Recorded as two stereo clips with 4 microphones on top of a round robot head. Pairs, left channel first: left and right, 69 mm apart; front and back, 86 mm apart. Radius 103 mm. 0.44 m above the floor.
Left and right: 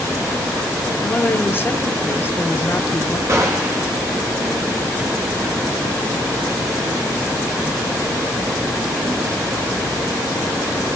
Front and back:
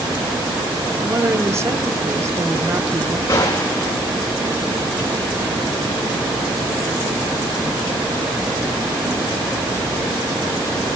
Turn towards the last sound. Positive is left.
turn(degrees=-50)